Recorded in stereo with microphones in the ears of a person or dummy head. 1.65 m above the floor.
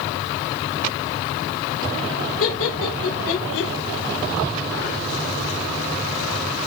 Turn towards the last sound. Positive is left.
turn(degrees=80)